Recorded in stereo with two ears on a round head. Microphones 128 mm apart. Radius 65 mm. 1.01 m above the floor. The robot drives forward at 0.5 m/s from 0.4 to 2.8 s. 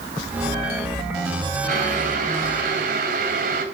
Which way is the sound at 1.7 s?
55° right (ahead or behind).